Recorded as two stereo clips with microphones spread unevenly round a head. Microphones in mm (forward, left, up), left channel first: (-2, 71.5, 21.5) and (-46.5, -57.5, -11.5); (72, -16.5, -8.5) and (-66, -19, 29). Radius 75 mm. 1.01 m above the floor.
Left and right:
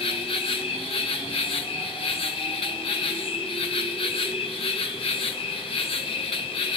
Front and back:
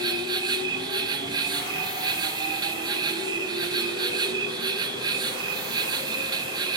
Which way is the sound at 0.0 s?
115° left.